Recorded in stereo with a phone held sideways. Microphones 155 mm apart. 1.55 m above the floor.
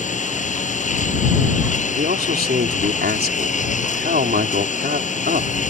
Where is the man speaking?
85° right.